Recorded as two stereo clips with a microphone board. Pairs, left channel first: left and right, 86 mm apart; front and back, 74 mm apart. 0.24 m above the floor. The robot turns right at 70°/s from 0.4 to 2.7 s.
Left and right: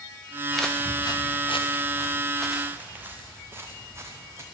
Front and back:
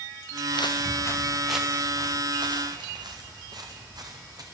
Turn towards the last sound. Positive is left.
turn(degrees=-145)